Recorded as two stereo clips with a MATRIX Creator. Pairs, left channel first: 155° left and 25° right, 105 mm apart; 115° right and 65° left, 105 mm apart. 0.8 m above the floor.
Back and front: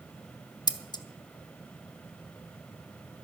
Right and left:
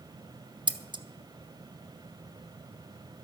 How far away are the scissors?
About 0.8 m.